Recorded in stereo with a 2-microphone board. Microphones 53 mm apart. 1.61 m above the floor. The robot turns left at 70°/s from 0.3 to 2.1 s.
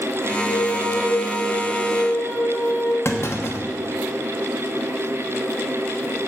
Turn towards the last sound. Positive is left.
turn(degrees=50)  # may be behind; listen again after turning